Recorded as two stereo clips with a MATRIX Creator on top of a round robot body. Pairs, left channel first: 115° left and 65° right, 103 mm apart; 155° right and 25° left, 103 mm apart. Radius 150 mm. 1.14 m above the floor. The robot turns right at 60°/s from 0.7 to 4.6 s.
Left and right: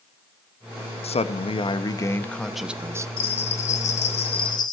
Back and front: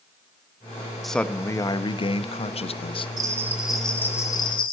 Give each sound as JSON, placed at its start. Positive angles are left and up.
{"t": 1.0, "sound": "a man speaking", "azimuth_deg": 115, "distance_m": 1.0}
{"t": 3.2, "sound": "a bell", "azimuth_deg": 75, "distance_m": 0.8}